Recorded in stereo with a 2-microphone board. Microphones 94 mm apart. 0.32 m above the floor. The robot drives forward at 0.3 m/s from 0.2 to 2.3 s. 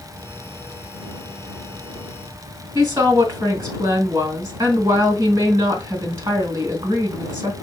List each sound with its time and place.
2.8 s a woman speaking: 35° right (ahead or behind), 2 m